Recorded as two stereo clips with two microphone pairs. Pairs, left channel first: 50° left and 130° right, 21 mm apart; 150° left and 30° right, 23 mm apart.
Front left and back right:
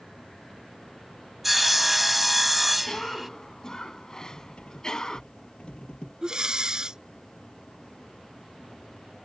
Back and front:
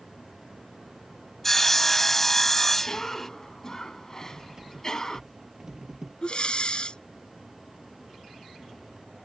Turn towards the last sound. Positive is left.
turn(degrees=-175)